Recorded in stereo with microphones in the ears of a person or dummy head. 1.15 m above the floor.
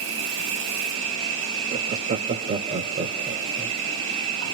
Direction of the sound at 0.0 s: 60° right (ahead or behind).